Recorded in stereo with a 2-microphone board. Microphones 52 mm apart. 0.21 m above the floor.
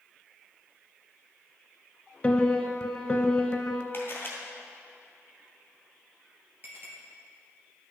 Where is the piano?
20° left (ahead or behind), 0.8 m.